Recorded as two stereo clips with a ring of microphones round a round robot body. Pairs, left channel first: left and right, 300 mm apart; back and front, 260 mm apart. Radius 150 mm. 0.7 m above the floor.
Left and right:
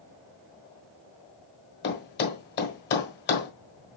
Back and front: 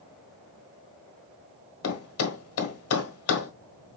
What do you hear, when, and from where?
1.8 s a thud: 150° left, 1.3 m